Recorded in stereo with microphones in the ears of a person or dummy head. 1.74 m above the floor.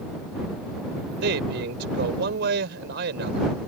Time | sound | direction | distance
1.2 | a man speaking | 70° right (ahead or behind) | ?